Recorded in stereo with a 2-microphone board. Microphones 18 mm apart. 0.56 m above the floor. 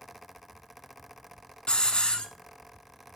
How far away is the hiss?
About 1.1 m.